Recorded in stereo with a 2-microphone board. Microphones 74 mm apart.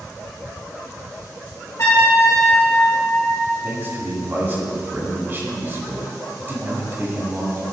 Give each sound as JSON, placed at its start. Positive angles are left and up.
{"t": 1.8, "sound": "a trumpet", "side_deg": 50, "distance_m": 2.5}
{"t": 3.6, "sound": "a man speaking", "side_deg": -30, "distance_m": 1.8}